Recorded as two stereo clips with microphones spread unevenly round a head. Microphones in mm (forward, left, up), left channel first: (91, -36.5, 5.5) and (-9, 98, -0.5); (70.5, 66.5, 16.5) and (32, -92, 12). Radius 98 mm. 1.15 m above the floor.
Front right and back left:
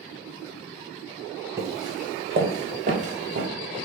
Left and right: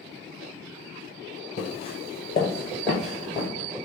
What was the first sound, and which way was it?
Footsteps, 60° left.